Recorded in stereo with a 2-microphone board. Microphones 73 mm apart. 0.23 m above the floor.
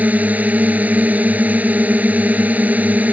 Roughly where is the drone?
Right.